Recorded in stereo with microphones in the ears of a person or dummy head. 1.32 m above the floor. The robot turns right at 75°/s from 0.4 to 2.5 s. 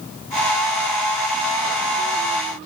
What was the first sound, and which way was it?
Only background noise.